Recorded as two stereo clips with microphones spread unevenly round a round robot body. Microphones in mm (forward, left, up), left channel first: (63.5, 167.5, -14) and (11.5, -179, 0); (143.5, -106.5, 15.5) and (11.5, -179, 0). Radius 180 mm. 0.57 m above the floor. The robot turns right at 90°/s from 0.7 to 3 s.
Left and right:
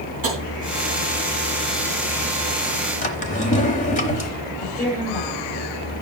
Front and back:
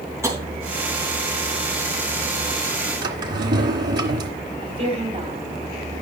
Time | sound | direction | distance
0.2 | tapping | 80° right | 3.5 m
3.0 | a drawer | 155° left | 0.9 m
4.6 | a woman speaking | 150° left | 3 m